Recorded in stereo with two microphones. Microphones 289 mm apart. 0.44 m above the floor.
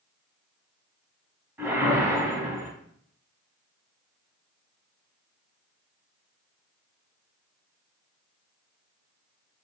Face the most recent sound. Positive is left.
turn(degrees=-10)  # may be behind; listen again after turning